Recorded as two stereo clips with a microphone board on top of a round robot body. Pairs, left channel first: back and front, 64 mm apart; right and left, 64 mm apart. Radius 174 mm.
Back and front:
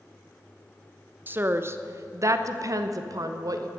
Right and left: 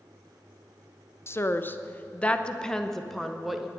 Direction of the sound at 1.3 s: 50° right.